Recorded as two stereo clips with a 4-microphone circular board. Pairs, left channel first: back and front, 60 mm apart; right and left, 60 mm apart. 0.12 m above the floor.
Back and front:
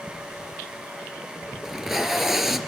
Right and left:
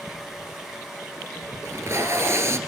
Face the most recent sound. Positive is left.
turn(degrees=85)